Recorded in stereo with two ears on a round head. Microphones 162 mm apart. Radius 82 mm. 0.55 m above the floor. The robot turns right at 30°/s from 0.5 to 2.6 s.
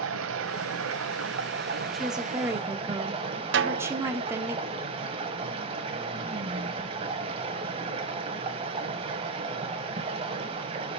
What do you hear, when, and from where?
0.0 s running water: 90° right, 1.0 m; by 11.0 s 30° right, 1.0 m
1.9 s a woman speaking: centre (ahead or behind), 0.9 m; by 4.5 s 15° right (ahead or behind), 0.9 m
3.5 s a snare drum: 65° right (ahead or behind), 0.6 m